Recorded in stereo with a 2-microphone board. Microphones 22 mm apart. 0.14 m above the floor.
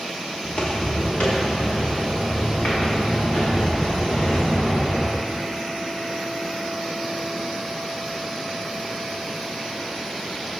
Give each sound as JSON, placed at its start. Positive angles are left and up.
{"t": 0.4, "sound": "footsteps", "side_deg": 40, "distance_m": 2.0}